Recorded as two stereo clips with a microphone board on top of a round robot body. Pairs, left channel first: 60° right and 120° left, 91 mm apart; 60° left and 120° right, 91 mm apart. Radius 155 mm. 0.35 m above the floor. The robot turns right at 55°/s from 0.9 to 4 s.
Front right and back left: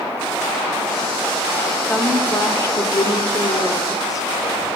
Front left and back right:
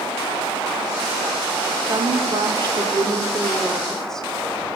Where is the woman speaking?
140° right, 1.5 m; by 4.3 s 25° right, 1.5 m.